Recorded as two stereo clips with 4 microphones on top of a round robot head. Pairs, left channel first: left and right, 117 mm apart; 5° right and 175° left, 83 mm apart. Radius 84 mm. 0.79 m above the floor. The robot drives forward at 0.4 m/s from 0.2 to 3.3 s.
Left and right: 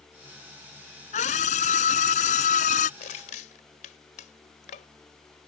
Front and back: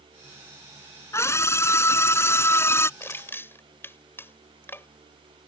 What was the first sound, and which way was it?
A scream, 55° left.